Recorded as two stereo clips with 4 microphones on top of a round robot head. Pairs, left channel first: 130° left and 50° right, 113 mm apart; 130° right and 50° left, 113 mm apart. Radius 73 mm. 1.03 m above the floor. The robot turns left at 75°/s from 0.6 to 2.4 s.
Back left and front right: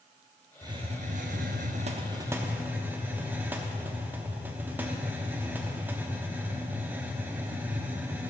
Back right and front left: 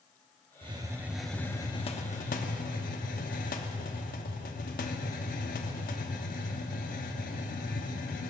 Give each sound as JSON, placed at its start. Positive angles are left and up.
{"t": 0.6, "sound": "a hiss", "azimuth_deg": 10, "distance_m": 0.8}